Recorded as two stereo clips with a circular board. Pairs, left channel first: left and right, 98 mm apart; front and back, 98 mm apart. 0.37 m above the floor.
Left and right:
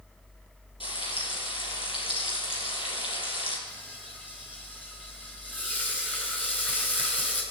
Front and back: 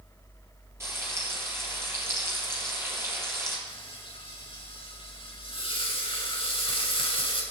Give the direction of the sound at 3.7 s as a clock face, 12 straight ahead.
11 o'clock.